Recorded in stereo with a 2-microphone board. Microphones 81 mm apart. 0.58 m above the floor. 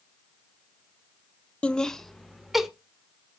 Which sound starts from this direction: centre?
Laughter, at 1.6 s.